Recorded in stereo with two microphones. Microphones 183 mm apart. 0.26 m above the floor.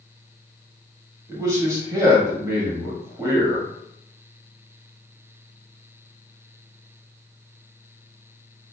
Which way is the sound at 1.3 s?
15° right (ahead or behind).